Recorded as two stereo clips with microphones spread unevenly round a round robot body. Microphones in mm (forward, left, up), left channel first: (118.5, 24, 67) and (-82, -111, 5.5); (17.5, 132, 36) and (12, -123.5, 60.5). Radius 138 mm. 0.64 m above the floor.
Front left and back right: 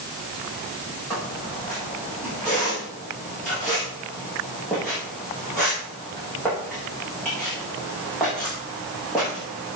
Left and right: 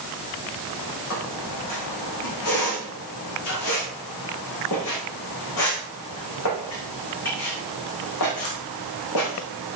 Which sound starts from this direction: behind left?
A squeak, at 1.1 s.